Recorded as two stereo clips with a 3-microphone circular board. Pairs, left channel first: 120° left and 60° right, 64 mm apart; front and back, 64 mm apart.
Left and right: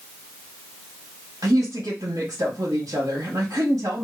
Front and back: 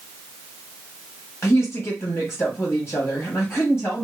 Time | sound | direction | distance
1.4 | a woman speaking | 50° right | 1.3 m